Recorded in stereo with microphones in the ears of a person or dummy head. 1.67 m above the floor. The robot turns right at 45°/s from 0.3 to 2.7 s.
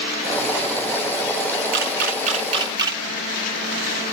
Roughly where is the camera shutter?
Right.